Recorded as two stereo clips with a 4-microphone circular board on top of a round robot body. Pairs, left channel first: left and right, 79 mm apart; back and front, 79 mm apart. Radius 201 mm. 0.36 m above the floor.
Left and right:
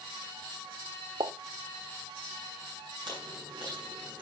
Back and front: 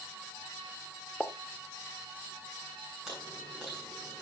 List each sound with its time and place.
1.2 s a pop: 95° right, 1.0 m
3.1 s chewing: 85° right, 7 m